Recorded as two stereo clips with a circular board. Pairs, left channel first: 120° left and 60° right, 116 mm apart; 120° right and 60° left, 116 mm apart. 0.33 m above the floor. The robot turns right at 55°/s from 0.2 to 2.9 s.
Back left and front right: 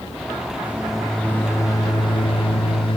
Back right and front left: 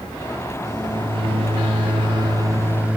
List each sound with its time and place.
0.6 s a microwave: 10° left, 1.4 m; by 3.0 s 135° left, 1.4 m